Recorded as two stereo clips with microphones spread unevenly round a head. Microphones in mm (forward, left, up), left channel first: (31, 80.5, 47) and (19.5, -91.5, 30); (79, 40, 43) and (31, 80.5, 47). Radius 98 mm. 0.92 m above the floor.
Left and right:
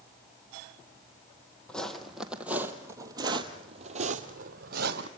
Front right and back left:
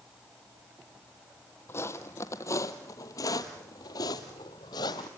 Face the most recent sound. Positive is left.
turn(degrees=-65)